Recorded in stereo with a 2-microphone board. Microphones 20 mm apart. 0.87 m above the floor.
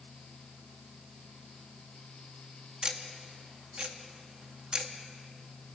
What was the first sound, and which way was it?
Ticking, 55° right (ahead or behind).